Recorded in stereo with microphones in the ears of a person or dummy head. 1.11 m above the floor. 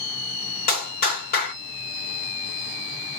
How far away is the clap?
About 2.5 m.